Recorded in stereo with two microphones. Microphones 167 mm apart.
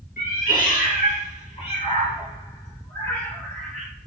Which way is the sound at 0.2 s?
60° left (ahead or behind).